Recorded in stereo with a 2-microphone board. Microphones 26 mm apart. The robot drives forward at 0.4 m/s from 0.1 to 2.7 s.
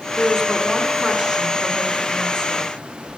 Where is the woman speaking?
20° right (ahead or behind), 1.4 m; by 2.7 s 15° right (ahead or behind), 1.8 m.